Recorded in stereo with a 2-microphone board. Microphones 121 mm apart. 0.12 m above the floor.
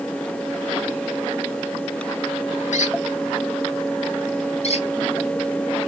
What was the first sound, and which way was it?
A squeak, 80° left.